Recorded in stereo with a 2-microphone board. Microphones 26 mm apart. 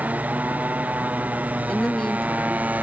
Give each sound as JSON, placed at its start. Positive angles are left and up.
{"t": 0.0, "sound": "a motorcycle", "side_deg": -85}
{"t": 1.7, "sound": "a woman speaking", "side_deg": 25}